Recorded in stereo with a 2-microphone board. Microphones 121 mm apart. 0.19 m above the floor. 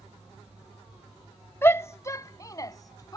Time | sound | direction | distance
1.6 | a shout | 20° left (ahead or behind) | ?